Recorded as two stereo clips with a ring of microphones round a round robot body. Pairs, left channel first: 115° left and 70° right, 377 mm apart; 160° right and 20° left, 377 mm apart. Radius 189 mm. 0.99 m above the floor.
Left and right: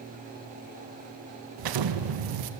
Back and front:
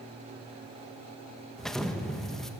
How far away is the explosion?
About 1.2 m.